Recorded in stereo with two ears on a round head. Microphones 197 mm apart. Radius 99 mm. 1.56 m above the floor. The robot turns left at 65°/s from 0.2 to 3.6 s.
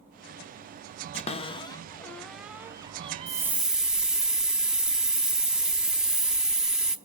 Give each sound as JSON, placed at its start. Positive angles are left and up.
{"t": 1.1, "sound": "a cupboard door", "side_deg": 30, "distance_m": 0.7}
{"t": 3.3, "sound": "a hiss", "side_deg": -20, "distance_m": 0.8}